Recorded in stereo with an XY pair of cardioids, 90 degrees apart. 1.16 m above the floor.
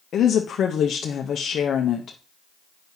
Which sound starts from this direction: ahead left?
A woman speaking, at 0.1 s.